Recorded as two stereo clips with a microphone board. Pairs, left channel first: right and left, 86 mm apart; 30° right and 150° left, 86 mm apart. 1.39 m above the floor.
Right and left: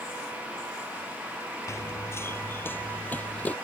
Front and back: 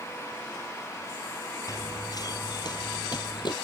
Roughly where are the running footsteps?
Ahead right.